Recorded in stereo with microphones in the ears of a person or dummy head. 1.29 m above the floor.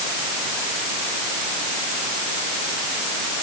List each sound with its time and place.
Only background noise.